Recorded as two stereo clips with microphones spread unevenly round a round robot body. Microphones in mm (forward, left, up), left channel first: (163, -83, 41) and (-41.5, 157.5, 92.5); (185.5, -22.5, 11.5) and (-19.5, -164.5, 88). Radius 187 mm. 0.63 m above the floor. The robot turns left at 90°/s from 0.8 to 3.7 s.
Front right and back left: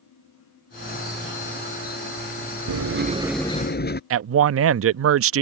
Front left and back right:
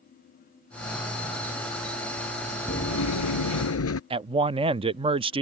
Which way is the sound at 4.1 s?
135° left.